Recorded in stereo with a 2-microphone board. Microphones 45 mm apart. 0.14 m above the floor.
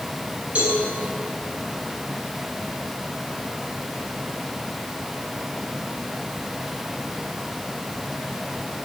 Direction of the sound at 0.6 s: 30° right (ahead or behind).